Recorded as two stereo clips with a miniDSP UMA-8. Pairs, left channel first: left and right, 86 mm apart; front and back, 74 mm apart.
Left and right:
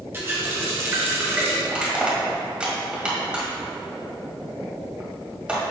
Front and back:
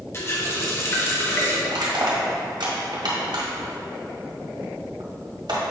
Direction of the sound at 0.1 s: 35° right.